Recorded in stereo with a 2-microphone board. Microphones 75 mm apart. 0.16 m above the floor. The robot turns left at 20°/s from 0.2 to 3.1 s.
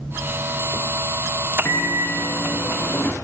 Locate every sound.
1.6 s a microwave: 35° left (ahead or behind), 1.3 m; by 3.1 s 25° left (ahead or behind), 1.3 m